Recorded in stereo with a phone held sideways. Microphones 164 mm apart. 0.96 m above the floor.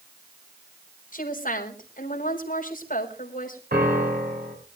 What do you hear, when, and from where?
1.1 s a woman speaking: 55° left (ahead or behind), 4 m
3.7 s a piano: 70° right (ahead or behind), 4.5 m